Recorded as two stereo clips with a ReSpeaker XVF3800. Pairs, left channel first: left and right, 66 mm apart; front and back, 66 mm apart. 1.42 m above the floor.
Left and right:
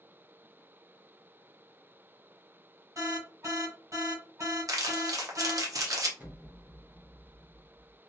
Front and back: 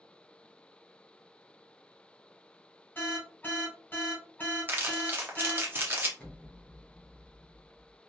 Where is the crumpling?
120° right, 0.7 m.